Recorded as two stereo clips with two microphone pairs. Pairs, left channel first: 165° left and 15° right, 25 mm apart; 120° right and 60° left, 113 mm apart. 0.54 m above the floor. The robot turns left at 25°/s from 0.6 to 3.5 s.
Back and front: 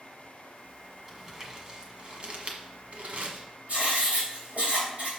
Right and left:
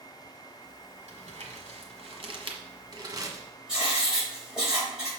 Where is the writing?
20° right, 3 m.